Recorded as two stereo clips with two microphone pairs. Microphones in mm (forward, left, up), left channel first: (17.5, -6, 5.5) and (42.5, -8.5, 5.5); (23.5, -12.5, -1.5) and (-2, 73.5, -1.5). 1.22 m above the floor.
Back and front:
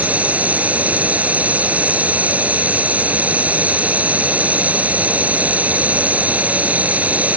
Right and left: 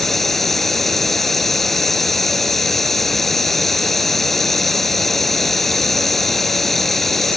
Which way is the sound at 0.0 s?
15° left.